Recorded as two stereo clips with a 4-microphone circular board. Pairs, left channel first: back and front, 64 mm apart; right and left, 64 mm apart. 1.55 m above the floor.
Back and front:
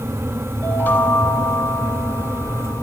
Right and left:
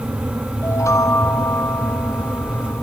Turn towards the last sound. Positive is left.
turn(degrees=-120)